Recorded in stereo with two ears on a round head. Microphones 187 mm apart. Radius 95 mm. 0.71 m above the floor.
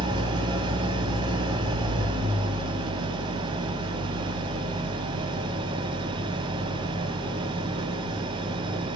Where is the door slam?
I don't hear a door slam.